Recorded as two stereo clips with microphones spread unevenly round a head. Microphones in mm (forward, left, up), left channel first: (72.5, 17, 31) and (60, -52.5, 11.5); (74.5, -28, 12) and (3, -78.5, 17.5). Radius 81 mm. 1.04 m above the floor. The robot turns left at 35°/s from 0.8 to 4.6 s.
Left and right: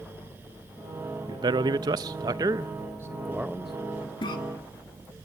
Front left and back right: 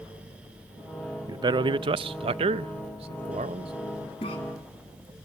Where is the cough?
70° left, 2.5 m; by 4.4 s 65° left, 2.5 m.